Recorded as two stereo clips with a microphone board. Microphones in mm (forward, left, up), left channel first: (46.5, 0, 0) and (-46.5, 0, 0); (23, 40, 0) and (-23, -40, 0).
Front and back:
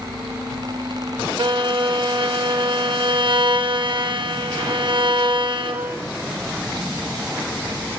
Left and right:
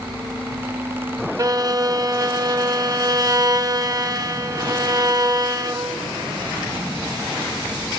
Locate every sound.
1.4 s a violin: 165° right, 1.0 m